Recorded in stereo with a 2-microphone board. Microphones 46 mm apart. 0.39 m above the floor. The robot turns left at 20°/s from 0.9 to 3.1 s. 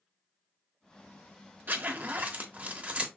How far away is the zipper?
About 0.7 m.